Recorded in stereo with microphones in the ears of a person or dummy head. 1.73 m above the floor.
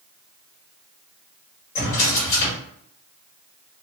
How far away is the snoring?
I don't hear snoring.